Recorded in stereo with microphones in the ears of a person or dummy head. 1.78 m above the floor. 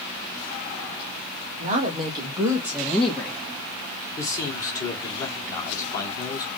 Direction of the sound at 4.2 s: 20° left (ahead or behind).